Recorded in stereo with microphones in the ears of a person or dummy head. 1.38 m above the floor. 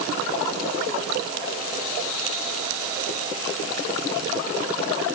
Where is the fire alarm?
No fire alarm in this recording.